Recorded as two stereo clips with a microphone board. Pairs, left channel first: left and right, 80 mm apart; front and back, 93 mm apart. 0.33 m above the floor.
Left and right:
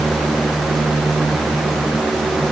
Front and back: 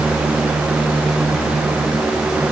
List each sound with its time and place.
Only background noise.